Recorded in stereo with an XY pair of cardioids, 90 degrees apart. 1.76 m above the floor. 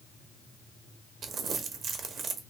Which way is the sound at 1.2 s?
65° right.